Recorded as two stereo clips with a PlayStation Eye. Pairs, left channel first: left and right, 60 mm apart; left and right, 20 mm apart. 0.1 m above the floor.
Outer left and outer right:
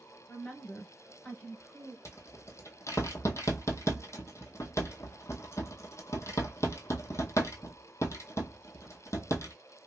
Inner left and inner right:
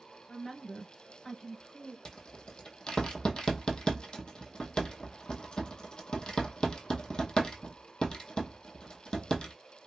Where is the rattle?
50° left (ahead or behind), 0.6 m.